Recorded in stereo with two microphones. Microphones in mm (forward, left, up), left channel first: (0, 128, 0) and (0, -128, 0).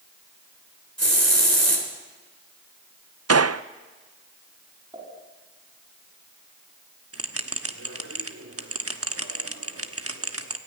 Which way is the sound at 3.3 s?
80° right.